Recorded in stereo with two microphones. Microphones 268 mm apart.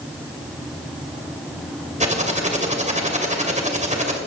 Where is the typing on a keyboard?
25° right (ahead or behind), 2.5 m.